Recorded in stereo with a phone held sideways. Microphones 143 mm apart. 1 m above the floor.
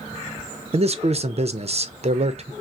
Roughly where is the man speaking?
Right.